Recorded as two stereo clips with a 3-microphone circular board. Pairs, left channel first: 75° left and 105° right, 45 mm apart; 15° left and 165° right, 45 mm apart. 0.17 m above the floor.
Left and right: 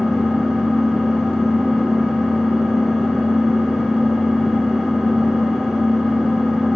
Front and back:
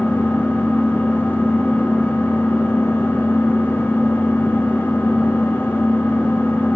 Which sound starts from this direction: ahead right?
An engine running, at 0.0 s.